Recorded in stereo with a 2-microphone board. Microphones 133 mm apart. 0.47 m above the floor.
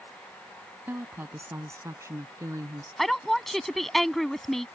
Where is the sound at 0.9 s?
15° right (ahead or behind); by 2.9 s 25° right (ahead or behind).